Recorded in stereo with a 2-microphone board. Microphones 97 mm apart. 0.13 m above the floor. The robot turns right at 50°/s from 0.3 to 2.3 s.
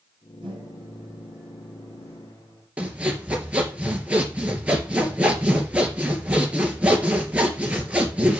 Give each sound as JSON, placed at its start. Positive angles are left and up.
{"t": 0.4, "sound": "a microwave", "azimuth_deg": -55, "distance_m": 6.0}
{"t": 2.8, "sound": "sawing", "side_deg": -15, "distance_m": 3.0}